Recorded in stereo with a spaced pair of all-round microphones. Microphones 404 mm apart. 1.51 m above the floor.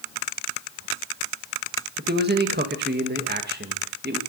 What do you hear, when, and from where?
2.0 s a man speaking: 25° right (ahead or behind), 1.7 m